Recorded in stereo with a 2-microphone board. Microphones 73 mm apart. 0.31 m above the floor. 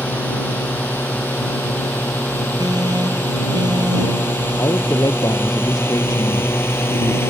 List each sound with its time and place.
0.0 s a drone: 25° left (ahead or behind); by 7.3 s 35° left (ahead or behind)
2.6 s an alarm: 70° right (ahead or behind)
4.6 s a man speaking: 55° left (ahead or behind)